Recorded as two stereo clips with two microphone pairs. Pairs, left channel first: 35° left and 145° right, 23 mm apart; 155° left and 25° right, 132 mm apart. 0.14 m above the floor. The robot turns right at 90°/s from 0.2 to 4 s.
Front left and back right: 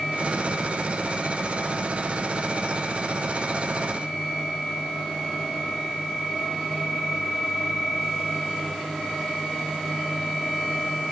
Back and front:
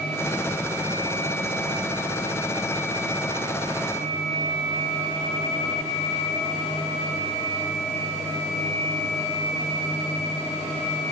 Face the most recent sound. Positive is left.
No sound to turn to.